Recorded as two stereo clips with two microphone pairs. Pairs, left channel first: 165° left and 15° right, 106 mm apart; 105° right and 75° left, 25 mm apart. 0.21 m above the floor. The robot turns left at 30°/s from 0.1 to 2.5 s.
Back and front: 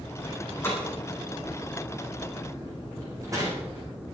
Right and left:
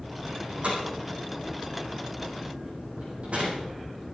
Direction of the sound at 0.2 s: 110° left.